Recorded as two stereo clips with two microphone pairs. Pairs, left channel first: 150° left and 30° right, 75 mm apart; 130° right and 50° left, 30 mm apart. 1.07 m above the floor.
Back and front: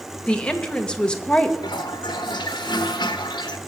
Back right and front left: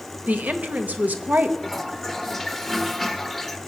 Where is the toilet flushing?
145° left, 1.0 m.